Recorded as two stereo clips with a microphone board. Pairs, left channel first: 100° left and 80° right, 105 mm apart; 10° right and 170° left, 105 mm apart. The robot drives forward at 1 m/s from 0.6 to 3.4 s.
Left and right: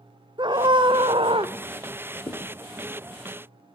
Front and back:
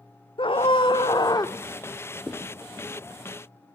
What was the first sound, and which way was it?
A scream, 40° right.